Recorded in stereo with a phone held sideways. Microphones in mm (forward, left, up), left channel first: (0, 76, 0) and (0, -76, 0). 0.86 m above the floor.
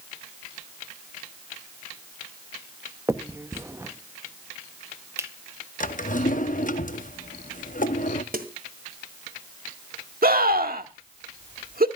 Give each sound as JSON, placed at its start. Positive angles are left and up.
{"t": 3.1, "sound": "a finger snap", "side_deg": -20, "distance_m": 0.8}
{"t": 5.8, "sound": "a drawer", "side_deg": 60, "distance_m": 0.8}
{"t": 8.3, "sound": "a snare drum", "side_deg": -70, "distance_m": 1.7}
{"t": 10.2, "sound": "a scream", "side_deg": -75, "distance_m": 1.7}